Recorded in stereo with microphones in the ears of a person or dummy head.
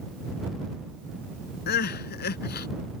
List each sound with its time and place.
1.7 s crying: 50° left (ahead or behind)